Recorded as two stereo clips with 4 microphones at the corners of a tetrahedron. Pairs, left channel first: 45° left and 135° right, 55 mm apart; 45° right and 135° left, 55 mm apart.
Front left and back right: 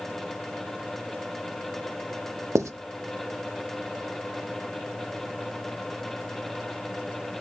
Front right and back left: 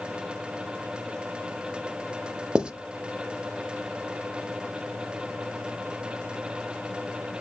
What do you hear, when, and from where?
2.5 s writing: 155° right, 0.5 m